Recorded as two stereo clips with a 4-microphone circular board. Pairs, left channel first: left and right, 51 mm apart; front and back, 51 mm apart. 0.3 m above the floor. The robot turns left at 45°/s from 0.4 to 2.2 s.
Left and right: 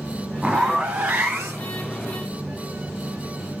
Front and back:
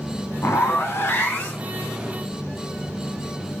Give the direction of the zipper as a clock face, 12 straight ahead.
12 o'clock.